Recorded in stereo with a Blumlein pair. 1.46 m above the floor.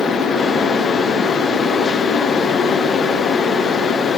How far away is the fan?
About 0.8 m.